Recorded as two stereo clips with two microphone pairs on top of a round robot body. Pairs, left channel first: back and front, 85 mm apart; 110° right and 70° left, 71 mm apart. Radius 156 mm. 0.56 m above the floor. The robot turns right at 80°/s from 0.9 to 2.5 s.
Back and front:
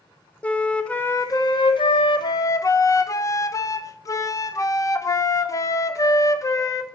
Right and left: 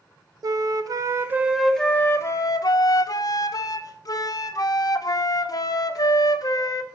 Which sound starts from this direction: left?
A flute, at 0.4 s.